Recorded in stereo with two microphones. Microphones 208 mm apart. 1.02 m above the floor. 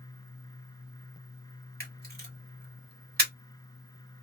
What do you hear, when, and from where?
1.8 s a camera shutter: 50° right (ahead or behind), 1.2 m